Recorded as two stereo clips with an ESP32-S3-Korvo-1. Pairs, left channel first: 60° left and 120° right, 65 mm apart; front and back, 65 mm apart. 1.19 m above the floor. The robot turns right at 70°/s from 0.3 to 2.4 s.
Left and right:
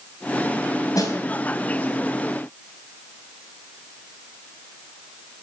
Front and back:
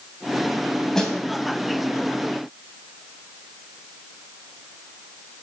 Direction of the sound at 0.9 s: 80° left.